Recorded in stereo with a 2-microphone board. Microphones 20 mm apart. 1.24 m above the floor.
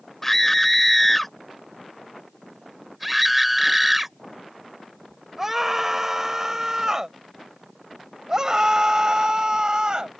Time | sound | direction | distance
0.2 | a scream | 20° left (ahead or behind) | ?